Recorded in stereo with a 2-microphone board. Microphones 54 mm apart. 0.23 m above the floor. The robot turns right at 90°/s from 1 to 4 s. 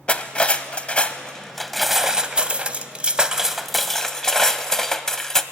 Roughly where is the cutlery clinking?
Left.